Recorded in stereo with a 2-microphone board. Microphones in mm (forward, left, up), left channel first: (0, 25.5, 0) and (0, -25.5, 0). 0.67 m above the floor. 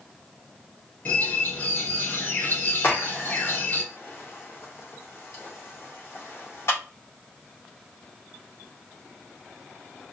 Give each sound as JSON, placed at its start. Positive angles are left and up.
{"t": 1.1, "sound": "a bird", "side_deg": 40, "distance_m": 1.8}
{"t": 2.8, "sound": "a crack", "side_deg": 60, "distance_m": 1.9}